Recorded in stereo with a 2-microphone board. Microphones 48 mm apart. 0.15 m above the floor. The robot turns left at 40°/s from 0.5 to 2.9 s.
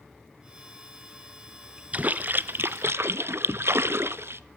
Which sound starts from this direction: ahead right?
A splash, at 1.9 s.